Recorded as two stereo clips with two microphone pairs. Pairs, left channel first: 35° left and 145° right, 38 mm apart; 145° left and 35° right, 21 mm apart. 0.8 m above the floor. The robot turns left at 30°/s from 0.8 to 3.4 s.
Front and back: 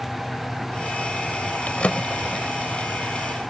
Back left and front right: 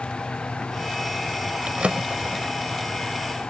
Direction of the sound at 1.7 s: 15° right.